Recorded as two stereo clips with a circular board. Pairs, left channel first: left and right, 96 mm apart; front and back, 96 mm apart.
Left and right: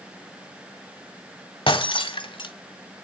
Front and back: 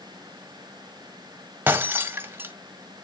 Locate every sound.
1.7 s breaking glass: 110° left, 1.5 m